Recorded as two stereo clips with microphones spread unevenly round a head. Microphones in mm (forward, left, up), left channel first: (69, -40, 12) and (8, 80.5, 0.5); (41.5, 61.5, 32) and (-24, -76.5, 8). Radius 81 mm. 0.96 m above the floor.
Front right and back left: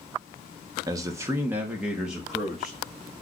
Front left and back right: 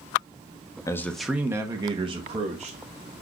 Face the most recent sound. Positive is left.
turn(degrees=-150)